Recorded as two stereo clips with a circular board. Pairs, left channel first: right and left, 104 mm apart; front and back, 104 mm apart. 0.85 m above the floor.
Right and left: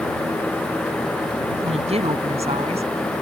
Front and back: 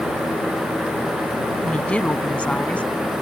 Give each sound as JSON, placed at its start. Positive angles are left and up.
{"t": 1.6, "sound": "a woman speaking", "azimuth_deg": 80}